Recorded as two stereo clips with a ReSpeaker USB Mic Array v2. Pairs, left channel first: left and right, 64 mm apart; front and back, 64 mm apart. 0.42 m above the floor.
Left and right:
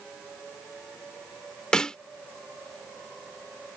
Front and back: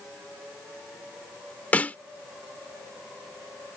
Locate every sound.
1.7 s a snare drum: 25° left